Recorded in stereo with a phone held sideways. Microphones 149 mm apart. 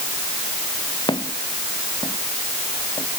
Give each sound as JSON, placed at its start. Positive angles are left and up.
{"t": 1.1, "sound": "footsteps", "side_deg": 30}